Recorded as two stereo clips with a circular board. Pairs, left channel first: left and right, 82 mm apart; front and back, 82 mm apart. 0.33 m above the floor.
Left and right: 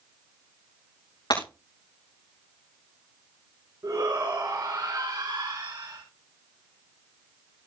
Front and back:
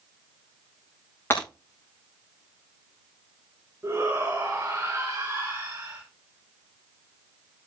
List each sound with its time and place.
1.3 s breaking glass: 60° left, 8.5 m
3.8 s a shout: 125° right, 4.5 m